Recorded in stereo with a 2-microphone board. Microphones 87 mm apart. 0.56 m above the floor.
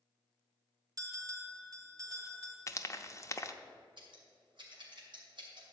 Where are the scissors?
70° right (ahead or behind), 2.5 m.